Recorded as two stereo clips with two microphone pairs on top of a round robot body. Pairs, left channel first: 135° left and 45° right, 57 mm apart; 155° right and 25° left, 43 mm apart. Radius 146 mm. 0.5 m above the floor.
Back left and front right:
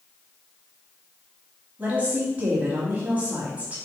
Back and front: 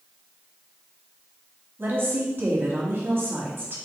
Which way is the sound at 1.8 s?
15° left.